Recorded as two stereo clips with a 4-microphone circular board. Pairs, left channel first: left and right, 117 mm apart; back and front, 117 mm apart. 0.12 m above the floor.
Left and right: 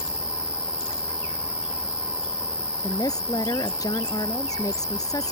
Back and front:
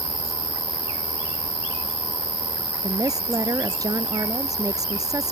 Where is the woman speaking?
45° left.